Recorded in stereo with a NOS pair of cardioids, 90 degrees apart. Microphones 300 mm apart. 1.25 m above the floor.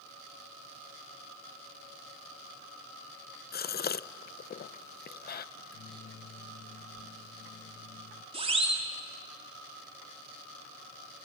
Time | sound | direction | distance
3.5 | a gasp | 30° left | 0.6 m
5.5 | a microwave | 45° left | 1.0 m
8.3 | a siren | 20° right | 3.5 m